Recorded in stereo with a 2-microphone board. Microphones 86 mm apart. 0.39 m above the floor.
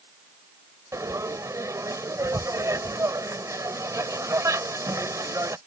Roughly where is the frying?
Right.